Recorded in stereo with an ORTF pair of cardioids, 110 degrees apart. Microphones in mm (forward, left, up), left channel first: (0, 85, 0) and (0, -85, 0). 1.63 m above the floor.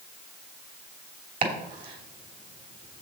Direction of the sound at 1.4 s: 55° right.